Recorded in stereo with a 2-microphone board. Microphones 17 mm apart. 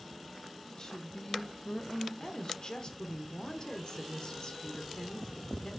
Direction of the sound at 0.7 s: 35° left (ahead or behind).